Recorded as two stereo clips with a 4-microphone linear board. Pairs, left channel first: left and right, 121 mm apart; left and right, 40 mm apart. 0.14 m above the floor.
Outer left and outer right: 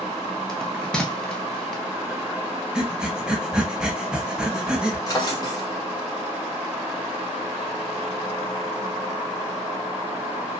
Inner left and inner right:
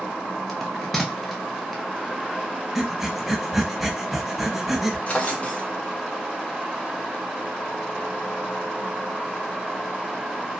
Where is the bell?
5° left (ahead or behind), 0.7 m.